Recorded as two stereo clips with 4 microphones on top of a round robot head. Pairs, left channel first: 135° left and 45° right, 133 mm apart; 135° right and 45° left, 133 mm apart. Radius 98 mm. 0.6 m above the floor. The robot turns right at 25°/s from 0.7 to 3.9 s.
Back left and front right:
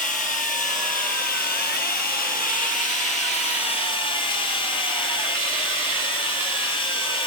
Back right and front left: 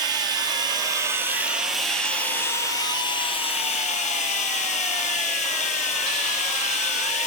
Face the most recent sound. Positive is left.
turn(degrees=-170)